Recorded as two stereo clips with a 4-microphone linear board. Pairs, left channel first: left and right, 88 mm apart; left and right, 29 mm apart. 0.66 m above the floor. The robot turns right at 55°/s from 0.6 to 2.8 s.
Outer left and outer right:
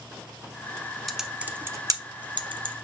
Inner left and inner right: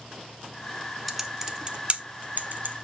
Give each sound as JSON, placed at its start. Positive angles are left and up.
{"t": 1.1, "sound": "typing on a keyboard", "side_deg": 0, "distance_m": 0.9}